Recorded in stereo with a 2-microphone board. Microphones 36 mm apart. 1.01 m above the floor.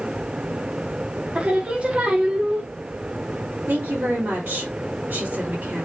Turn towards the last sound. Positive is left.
turn(degrees=-75)  # may be behind; listen again after turning